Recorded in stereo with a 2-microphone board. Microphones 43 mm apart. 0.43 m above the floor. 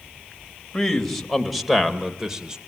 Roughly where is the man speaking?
Centre.